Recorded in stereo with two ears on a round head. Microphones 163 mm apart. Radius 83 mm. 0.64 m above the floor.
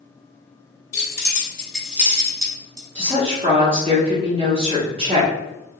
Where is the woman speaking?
30° right (ahead or behind), 0.9 m.